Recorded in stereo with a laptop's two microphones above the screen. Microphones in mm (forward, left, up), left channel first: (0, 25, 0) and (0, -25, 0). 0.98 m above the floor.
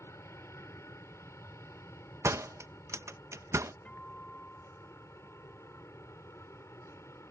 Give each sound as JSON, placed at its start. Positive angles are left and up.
{"t": 0.0, "sound": "an aircraft", "side_deg": 65}
{"t": 2.2, "sound": "a door slam", "side_deg": -65}
{"t": 3.9, "sound": "a guitar", "side_deg": 20}